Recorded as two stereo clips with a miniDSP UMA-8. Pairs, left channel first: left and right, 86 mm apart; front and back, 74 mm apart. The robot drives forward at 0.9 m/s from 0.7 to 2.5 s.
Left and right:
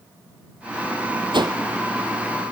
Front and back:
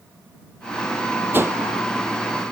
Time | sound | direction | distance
1.3 | a whoosh | 115° right | 0.6 m